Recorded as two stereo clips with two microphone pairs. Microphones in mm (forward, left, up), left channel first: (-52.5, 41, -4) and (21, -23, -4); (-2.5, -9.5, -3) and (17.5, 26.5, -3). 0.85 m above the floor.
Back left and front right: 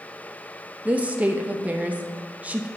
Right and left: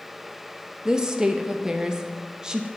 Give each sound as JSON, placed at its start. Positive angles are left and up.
{"t": 0.8, "sound": "a woman speaking", "azimuth_deg": 10, "distance_m": 0.6}